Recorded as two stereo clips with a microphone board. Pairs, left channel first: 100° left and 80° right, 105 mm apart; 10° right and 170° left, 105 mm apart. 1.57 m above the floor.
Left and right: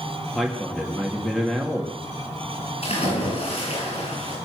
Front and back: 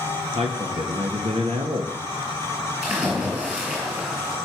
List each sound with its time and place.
0.3 s a man speaking: 170° right, 2.5 m
2.8 s a splash: 90° left, 8.5 m